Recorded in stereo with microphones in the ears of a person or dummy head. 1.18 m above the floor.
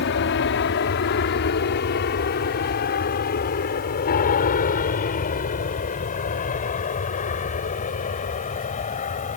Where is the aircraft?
55° left (ahead or behind); by 9.4 s 35° left (ahead or behind).